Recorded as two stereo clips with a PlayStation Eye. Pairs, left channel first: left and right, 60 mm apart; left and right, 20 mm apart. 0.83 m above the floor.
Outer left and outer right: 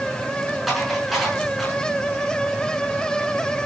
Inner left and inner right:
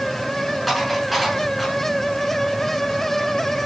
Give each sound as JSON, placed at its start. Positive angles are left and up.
{"t": 0.7, "sound": "dishes clattering", "side_deg": 0, "distance_m": 6.0}